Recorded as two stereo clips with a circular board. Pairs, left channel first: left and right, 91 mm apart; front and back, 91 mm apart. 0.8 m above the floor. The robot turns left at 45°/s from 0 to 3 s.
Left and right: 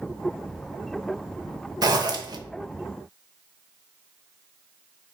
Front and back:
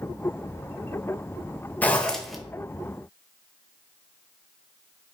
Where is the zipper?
65° right, 0.6 m; by 2.4 s 95° right, 0.6 m.